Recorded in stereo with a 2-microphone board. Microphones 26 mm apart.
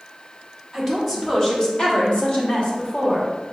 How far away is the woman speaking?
About 1.6 m.